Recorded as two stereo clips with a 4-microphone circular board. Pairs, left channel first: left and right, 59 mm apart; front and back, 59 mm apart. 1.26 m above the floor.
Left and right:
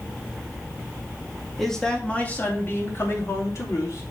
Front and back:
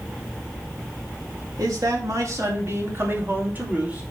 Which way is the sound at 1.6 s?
175° left.